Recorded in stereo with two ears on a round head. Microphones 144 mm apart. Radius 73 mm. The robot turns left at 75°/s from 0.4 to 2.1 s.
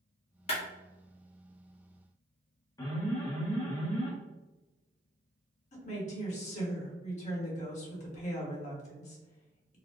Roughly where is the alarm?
Left.